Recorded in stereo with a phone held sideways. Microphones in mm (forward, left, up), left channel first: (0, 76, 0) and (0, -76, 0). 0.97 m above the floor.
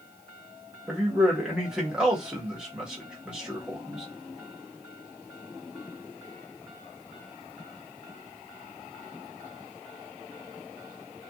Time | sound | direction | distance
0.9 | a man speaking | 5° right (ahead or behind) | 1.5 m